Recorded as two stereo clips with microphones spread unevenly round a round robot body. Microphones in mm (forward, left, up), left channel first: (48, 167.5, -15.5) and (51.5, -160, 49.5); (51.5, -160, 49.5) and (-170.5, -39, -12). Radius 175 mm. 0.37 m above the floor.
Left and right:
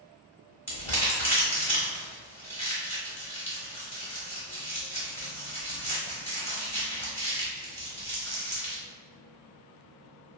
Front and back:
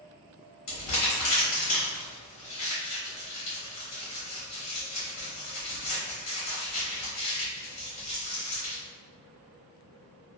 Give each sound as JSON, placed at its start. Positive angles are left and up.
{"t": 0.7, "sound": "crumpling", "azimuth_deg": 10, "distance_m": 1.3}